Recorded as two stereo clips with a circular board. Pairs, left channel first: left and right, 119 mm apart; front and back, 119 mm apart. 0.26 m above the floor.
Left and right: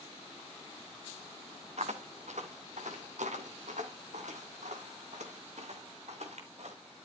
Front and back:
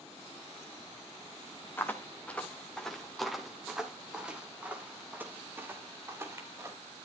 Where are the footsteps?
70° right, 3 m; by 6.8 s 115° right, 5 m.